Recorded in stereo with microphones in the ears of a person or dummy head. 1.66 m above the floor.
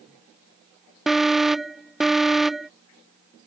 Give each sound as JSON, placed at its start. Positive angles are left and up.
{"t": 1.1, "sound": "an alarm", "side_deg": 5}